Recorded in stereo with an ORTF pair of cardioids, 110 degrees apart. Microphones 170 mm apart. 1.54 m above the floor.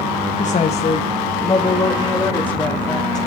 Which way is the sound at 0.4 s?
45° left.